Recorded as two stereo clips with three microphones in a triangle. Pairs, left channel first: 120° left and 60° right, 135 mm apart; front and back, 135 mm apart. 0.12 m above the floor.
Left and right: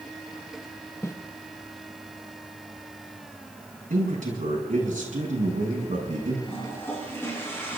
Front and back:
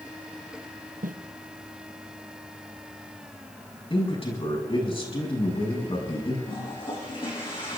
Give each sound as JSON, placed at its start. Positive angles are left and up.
{"t": 1.0, "sound": "footsteps", "azimuth_deg": -170, "distance_m": 1.0}
{"t": 3.9, "sound": "a man speaking", "azimuth_deg": -45, "distance_m": 6.0}
{"t": 6.5, "sound": "a toilet flushing", "azimuth_deg": 50, "distance_m": 5.0}